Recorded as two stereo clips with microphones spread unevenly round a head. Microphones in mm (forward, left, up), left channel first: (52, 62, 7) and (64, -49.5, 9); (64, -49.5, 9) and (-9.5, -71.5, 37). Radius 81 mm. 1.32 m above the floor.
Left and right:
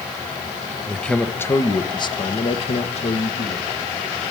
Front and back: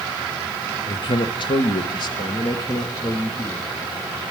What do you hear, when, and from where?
0.9 s a man speaking: 10° left, 1.2 m; by 3.7 s 85° left, 1.6 m